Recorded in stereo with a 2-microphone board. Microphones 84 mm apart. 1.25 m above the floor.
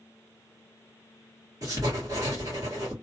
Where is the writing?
45° right (ahead or behind), 1.8 m.